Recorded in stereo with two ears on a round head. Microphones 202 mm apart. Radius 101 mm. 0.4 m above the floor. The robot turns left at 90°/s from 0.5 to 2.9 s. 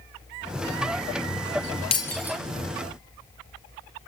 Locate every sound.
1.9 s breaking glass: 25° left (ahead or behind), 3 m; by 2.4 s 15° right (ahead or behind), 3 m